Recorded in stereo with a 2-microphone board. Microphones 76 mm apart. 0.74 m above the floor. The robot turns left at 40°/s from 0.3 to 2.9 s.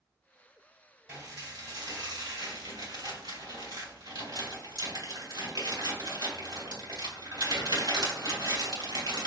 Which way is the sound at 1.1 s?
30° right (ahead or behind).